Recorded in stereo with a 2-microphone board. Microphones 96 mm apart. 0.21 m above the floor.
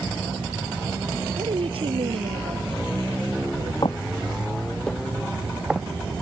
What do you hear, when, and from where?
1.4 s a woman speaking: 75° right (ahead or behind); by 3.7 s 65° right (ahead or behind)
3.8 s footsteps: 55° left (ahead or behind); by 6.2 s 15° right (ahead or behind)